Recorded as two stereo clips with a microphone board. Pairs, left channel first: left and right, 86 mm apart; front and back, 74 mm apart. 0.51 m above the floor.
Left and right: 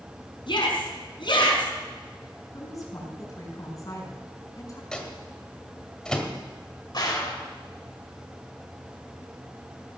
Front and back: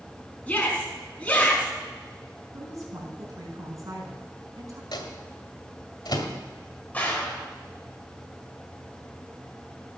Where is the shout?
75° left, 4.5 m.